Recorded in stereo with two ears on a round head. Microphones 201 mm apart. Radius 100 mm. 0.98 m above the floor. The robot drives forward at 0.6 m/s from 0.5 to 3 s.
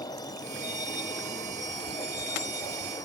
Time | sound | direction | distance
0.0 | a vehicle | 20° left (ahead or behind) | ?